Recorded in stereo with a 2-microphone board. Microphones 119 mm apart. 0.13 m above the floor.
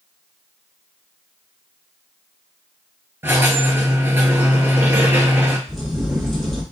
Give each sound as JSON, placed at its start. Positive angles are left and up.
{"t": 3.2, "sound": "a squeak", "side_deg": -20, "distance_m": 0.7}
{"t": 5.7, "sound": "a crack", "side_deg": 0, "distance_m": 1.7}